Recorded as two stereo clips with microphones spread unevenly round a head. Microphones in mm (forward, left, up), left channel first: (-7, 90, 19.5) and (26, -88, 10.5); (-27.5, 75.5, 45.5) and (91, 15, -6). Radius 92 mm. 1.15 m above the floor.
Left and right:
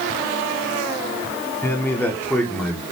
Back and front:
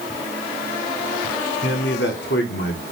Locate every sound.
1.6 s a man speaking: 175° left, 3 m; by 2.8 s 175° right, 3.5 m